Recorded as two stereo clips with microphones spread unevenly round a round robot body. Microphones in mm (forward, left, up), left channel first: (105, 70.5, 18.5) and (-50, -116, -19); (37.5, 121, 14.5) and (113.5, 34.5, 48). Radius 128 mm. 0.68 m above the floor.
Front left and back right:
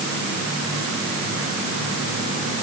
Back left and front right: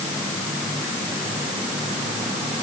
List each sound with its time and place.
Only background noise.